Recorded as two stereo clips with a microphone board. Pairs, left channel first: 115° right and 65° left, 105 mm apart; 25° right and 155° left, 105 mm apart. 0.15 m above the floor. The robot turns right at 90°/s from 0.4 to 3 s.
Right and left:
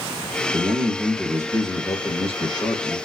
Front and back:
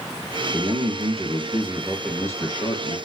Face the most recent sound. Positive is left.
turn(degrees=-25)